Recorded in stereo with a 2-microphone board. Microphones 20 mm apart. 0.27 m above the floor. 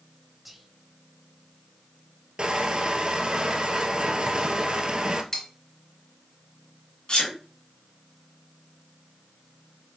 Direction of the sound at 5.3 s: 30° left (ahead or behind).